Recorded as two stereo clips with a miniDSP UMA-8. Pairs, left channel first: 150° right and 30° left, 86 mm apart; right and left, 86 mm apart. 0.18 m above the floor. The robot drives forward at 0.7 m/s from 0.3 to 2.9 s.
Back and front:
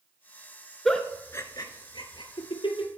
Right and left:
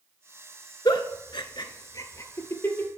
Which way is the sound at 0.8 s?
65° right.